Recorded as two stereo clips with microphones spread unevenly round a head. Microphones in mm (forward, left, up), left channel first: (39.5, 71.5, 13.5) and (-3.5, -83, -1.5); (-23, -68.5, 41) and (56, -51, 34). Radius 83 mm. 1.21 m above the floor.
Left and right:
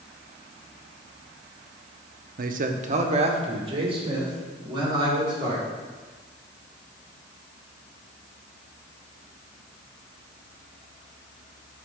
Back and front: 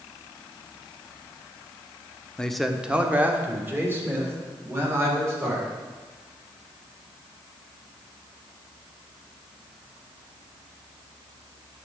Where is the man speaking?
85° right, 0.7 m; by 5.6 s 45° right, 3.5 m.